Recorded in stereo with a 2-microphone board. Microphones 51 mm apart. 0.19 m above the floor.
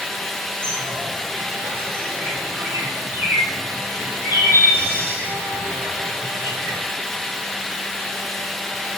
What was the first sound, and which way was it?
A bird, 50° right (ahead or behind).